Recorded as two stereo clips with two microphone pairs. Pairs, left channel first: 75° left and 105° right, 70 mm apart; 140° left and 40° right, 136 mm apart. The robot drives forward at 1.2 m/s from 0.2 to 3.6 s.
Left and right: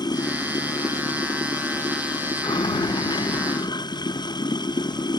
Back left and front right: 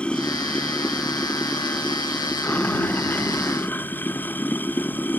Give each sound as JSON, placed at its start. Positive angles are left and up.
{"t": 0.0, "sound": "running water", "azimuth_deg": 60}